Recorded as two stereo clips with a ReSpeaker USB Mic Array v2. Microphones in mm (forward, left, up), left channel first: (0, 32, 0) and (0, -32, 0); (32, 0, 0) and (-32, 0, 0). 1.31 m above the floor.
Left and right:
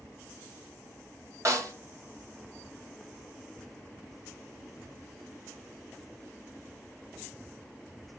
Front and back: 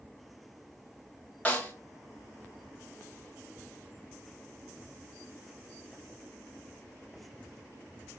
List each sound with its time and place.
1.4 s a snare drum: 65° right, 2.5 m